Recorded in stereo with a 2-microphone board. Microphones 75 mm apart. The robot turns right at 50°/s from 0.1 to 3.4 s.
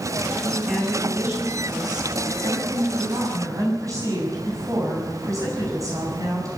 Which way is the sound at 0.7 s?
175° left.